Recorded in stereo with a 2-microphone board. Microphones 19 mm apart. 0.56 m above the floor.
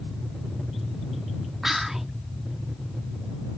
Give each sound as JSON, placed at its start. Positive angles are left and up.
{"t": 1.6, "sound": "whispering", "side_deg": -20}